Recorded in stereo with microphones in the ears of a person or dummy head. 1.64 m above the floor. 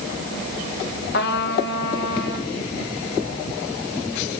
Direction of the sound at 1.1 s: 60° left (ahead or behind).